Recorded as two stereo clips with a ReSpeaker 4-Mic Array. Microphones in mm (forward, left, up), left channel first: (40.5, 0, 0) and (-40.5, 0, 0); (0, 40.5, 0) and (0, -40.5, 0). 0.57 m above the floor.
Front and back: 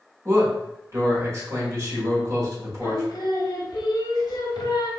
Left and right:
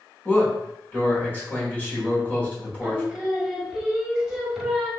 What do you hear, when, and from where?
0.2 s a man speaking: 145° left, 1.6 m
2.8 s singing: 5° right, 0.8 m